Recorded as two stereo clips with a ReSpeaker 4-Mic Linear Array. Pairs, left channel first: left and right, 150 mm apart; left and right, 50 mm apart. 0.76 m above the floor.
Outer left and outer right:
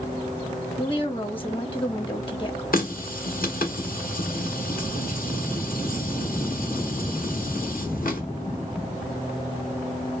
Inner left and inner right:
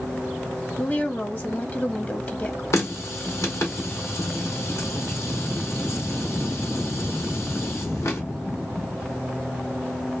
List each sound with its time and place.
0.8 s a woman speaking: 35° left (ahead or behind), 1.2 m
2.7 s a running tap: 70° left (ahead or behind), 1.2 m